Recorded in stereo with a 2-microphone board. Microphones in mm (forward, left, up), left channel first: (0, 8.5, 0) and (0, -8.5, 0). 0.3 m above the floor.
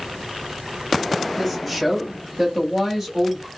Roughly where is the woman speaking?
Centre.